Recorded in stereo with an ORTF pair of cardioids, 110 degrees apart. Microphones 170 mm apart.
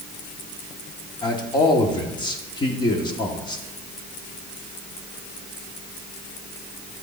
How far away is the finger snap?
No finger snap in this recording.